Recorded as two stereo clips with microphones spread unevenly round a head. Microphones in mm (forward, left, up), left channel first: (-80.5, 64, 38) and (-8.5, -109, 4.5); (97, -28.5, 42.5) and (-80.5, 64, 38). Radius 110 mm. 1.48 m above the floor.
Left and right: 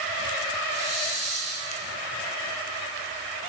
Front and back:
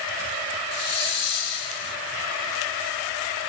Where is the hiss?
5° right, 1.6 m.